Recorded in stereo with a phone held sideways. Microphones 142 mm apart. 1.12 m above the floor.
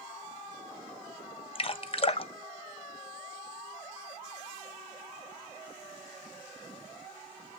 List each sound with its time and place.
1.6 s dripping: 40° left (ahead or behind), 0.5 m